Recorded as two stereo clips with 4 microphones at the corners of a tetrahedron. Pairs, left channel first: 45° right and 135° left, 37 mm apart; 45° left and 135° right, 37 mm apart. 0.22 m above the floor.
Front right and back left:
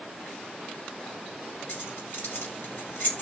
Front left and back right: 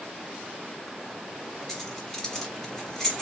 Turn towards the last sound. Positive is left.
turn(degrees=-35)